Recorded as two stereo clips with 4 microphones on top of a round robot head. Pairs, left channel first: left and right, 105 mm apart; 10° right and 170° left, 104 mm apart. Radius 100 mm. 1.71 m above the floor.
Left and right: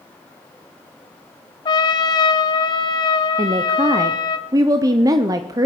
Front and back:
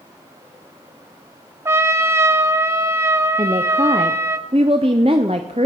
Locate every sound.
1.6 s a trumpet: 120° left, 0.6 m
3.4 s a woman speaking: 135° right, 0.6 m